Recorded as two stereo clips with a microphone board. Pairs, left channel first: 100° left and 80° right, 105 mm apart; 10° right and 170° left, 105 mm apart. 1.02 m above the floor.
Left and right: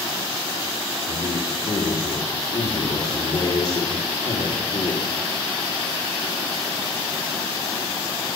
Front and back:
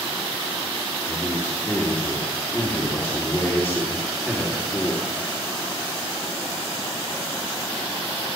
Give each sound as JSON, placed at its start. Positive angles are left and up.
{"t": 1.1, "sound": "a man speaking", "azimuth_deg": 55, "distance_m": 3.0}